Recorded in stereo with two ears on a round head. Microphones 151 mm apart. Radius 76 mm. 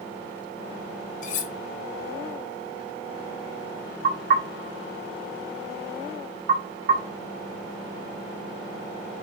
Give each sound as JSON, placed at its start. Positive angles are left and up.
{"t": 1.2, "sound": "cutlery clinking", "side_deg": 50, "distance_m": 0.8}
{"t": 4.0, "sound": "knocking", "side_deg": -55, "distance_m": 2.0}